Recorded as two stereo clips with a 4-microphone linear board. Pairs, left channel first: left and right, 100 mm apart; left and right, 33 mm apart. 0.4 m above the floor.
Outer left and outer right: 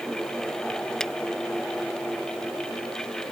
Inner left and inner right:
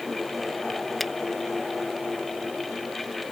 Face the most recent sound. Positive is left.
turn(degrees=5)  # may be behind; listen again after turning